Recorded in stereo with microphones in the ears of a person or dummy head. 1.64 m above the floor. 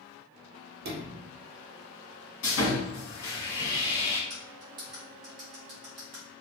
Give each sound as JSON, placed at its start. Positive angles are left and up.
{"t": 0.8, "sound": "a sliding door", "side_deg": -50, "distance_m": 0.6}
{"t": 2.4, "sound": "sawing", "side_deg": 60, "distance_m": 1.6}
{"t": 4.3, "sound": "cutlery clinking", "side_deg": -20, "distance_m": 0.8}